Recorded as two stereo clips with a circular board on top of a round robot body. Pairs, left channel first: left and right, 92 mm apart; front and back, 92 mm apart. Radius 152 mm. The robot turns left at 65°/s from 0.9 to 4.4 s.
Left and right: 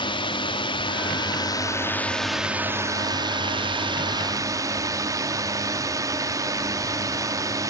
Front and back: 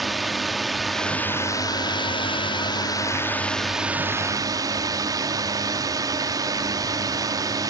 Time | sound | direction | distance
0.0 | a drone | 90° left | ?